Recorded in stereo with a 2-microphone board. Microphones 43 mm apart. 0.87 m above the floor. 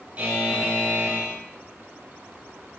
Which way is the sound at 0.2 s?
30° right (ahead or behind).